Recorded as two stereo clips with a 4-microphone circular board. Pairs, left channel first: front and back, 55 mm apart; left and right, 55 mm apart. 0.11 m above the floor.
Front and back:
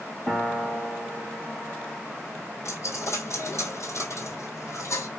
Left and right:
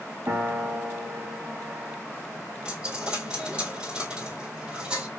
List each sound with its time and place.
0.3 s a piano: 65° right, 1.9 m
2.6 s a dropped coin: 25° right, 1.4 m